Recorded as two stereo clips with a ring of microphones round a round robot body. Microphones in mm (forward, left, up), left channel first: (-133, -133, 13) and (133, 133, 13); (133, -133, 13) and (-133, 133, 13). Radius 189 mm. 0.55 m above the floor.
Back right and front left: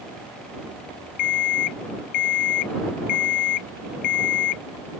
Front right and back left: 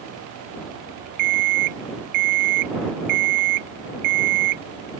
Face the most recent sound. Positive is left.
turn(degrees=180)